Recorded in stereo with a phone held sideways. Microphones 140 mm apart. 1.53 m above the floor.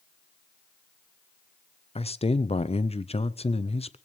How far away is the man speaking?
About 0.6 m.